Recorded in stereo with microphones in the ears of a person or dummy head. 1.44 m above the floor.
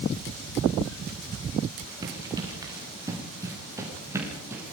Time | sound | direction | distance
2.0 | running footsteps | 20° right (ahead or behind) | 6.5 m